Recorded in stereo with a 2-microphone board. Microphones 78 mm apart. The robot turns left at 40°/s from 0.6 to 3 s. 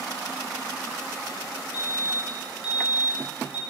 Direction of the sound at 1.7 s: 115° left.